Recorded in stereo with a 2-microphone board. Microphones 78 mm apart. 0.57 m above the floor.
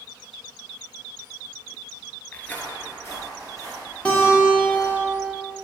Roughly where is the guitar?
Centre.